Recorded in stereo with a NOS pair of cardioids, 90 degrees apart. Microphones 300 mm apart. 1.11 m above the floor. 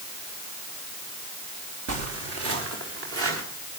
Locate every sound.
1.9 s footsteps: 60° right, 4.5 m; by 3.4 s 45° right, 5.5 m